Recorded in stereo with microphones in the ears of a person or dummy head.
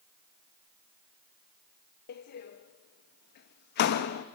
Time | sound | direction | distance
2.1 | a door slam | 55° left (ahead or behind) | 0.9 m